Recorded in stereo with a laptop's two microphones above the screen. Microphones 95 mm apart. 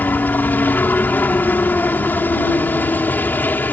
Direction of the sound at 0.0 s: 20° left (ahead or behind).